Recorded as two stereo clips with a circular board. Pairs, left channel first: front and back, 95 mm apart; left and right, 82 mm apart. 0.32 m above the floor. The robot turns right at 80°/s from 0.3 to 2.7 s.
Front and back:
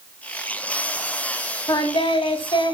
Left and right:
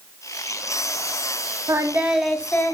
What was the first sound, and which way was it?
Singing, 45° right.